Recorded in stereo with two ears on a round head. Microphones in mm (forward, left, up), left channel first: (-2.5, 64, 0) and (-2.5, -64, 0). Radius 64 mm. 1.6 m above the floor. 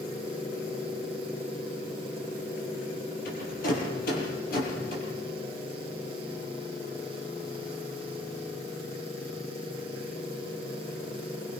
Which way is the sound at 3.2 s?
70° left (ahead or behind).